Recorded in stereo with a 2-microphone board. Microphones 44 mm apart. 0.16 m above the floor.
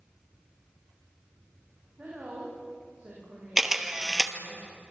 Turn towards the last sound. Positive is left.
turn(degrees=-10)  # may be behind; listen again after turning